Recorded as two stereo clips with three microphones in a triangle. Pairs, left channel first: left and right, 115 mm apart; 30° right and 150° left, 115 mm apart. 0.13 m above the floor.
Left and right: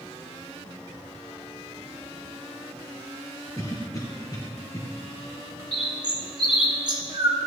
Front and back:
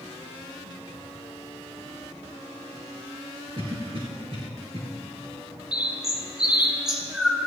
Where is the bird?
125° right, 1.6 m.